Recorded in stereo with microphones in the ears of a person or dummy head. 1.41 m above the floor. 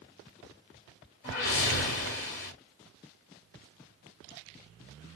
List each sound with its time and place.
1.2 s a whoosh: 50° left (ahead or behind), 1.5 m